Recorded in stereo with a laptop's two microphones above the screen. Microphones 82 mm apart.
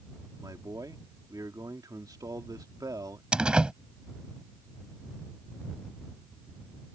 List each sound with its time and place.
0.4 s a man speaking: 50° right (ahead or behind)
3.3 s a door slam: 10° right (ahead or behind)